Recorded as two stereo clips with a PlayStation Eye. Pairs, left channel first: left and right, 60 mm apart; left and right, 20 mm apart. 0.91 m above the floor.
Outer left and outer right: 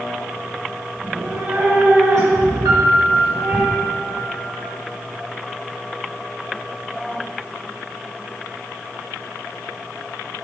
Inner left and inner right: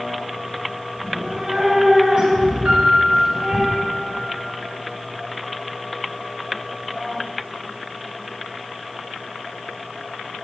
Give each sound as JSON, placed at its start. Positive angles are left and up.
{"t": 1.0, "sound": "a cat meowing", "side_deg": -50, "distance_m": 4.5}
{"t": 2.6, "sound": "a piano", "side_deg": -75, "distance_m": 2.0}